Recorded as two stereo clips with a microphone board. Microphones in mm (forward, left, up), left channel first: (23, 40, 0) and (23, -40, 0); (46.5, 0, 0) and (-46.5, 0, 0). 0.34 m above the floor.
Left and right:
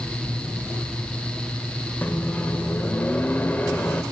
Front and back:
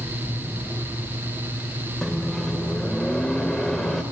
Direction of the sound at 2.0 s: 85° left.